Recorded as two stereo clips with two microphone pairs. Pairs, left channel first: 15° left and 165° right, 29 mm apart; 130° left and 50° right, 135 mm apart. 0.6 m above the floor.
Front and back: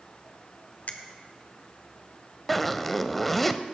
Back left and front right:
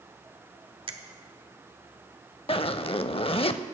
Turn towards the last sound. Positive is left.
turn(degrees=100)